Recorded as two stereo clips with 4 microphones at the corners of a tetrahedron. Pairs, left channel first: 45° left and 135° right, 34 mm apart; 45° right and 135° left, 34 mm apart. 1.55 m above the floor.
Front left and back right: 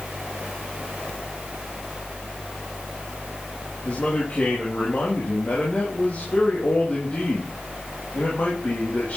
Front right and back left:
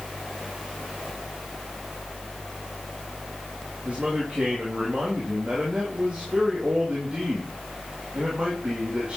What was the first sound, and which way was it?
A man speaking, 80° left.